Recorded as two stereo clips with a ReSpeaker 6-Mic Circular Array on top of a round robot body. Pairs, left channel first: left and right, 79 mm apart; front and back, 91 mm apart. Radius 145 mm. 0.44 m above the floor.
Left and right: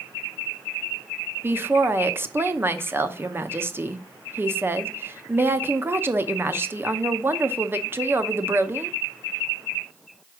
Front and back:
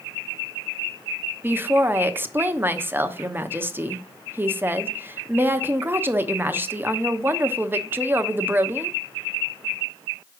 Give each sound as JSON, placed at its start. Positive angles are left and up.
{"t": 1.4, "sound": "a woman speaking", "azimuth_deg": -130, "distance_m": 0.9}